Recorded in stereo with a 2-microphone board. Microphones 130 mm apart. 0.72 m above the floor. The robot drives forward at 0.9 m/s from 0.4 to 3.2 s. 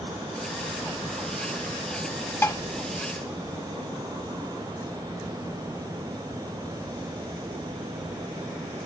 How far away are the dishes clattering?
About 0.6 m.